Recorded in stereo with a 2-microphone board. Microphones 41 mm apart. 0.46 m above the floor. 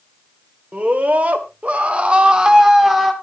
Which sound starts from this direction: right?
A scream, at 0.7 s.